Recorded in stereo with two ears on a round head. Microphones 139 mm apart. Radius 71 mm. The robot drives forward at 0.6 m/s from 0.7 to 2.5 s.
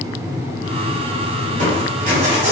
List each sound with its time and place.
1.5 s crushing: 60° right (ahead or behind), 1.9 m; by 2.5 s 50° right (ahead or behind), 2 m